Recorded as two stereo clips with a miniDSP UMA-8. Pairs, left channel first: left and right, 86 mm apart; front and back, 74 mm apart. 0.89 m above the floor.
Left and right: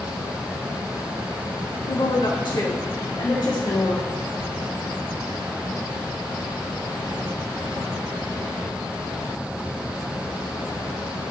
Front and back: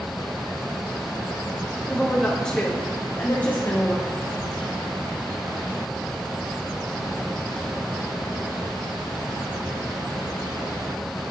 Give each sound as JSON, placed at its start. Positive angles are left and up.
{"t": 1.9, "sound": "a woman speaking", "azimuth_deg": 90, "distance_m": 1.6}